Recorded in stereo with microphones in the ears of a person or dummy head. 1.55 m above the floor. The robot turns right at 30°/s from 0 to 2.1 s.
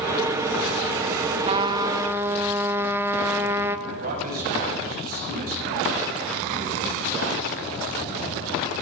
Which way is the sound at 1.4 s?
30° right (ahead or behind).